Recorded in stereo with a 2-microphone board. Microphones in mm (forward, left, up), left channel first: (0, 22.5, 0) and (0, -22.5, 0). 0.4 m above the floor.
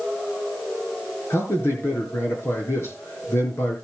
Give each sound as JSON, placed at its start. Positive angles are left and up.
{"t": 1.3, "sound": "a man speaking", "side_deg": 75, "distance_m": 7.0}